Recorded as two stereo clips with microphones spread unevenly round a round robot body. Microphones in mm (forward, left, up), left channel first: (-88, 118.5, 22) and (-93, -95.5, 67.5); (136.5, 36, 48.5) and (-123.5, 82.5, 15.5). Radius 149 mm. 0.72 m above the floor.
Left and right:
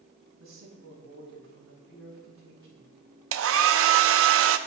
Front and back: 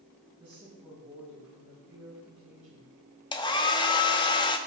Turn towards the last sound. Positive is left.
turn(degrees=-85)